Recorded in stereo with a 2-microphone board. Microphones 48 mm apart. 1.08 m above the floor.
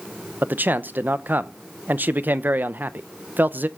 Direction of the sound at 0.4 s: 40° right (ahead or behind).